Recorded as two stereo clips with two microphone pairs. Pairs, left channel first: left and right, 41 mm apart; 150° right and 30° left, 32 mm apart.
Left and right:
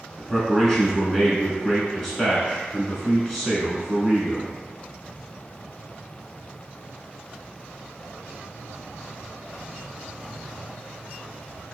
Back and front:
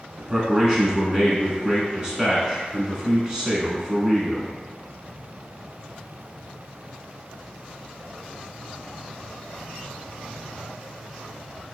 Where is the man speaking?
20° left, 1.0 m.